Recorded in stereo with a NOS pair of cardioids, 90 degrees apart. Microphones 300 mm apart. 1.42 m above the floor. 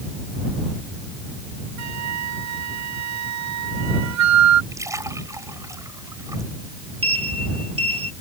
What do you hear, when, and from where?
1.8 s a flute: 65° right
4.7 s a splash: 10° right
7.0 s a sliding door: 20° right